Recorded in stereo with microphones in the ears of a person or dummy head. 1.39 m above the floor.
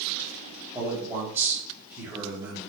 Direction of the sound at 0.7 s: 10° right (ahead or behind).